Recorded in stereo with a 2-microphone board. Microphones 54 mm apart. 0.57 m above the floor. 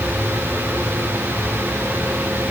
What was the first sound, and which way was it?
Only background noise.